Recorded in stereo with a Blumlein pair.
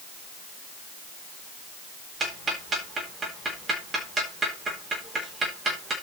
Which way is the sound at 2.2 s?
20° right.